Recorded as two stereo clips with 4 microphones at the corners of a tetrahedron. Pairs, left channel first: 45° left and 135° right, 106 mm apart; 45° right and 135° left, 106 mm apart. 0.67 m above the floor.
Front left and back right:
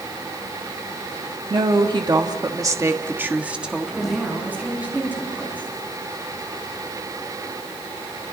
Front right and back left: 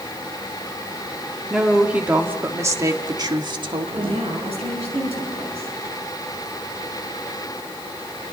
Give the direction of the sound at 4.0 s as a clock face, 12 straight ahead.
7 o'clock.